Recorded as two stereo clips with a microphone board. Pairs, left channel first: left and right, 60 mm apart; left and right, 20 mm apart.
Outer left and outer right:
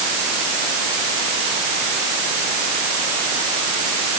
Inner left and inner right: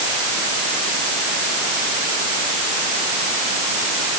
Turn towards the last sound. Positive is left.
No sound to turn to.